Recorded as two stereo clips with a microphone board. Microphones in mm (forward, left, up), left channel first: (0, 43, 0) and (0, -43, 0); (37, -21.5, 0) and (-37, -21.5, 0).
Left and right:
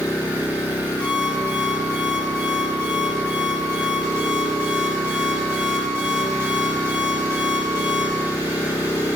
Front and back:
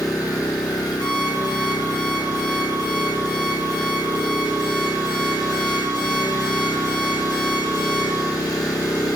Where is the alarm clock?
10° left, 4 m.